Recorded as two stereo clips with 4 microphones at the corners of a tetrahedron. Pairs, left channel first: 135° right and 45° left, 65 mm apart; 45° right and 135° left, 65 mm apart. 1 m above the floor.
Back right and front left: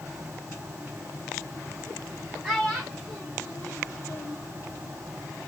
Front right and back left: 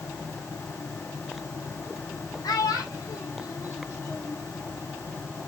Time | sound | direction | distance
2.4 | a child speaking | 40° right | 0.9 m